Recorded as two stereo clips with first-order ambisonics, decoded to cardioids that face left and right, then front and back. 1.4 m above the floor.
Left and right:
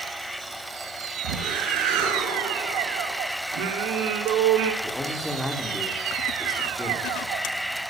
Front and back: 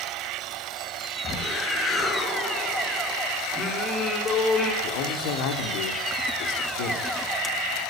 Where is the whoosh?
80° right, 4.5 m.